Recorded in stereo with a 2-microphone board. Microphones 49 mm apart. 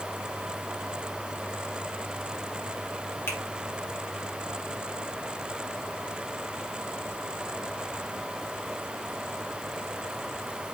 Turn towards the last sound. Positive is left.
turn(degrees=55)  # may be behind; listen again after turning